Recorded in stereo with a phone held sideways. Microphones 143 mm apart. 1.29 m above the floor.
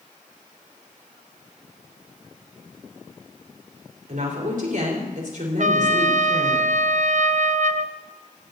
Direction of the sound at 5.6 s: 55° right (ahead or behind).